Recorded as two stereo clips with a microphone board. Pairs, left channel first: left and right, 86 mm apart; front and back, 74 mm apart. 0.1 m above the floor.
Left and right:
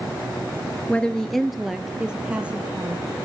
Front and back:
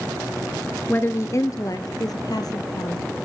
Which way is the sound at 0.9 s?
30° left.